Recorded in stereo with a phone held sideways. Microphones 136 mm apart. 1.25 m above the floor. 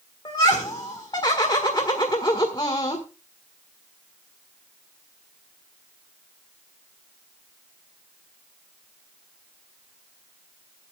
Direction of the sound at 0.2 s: 35° left (ahead or behind).